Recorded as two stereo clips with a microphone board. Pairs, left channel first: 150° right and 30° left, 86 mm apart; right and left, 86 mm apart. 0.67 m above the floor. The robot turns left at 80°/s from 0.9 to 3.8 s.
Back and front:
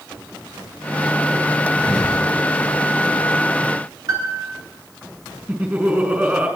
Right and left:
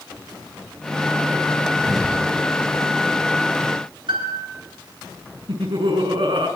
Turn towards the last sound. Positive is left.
turn(degrees=100)